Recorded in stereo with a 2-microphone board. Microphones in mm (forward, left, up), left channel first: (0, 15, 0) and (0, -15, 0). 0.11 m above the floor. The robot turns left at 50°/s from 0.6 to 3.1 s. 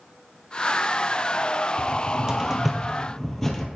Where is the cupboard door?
40° right (ahead or behind), 1.4 m; by 3.7 s 15° left (ahead or behind), 1.4 m.